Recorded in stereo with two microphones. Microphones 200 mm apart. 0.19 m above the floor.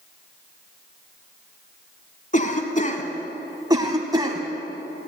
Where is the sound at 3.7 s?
20° right (ahead or behind), 1.2 m.